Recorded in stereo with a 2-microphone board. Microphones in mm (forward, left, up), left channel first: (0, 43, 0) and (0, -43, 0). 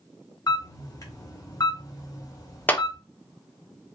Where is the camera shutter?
45° left (ahead or behind), 1.3 m.